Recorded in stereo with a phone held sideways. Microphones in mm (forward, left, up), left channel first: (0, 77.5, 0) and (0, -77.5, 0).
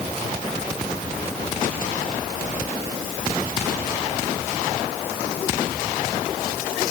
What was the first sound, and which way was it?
Only background noise.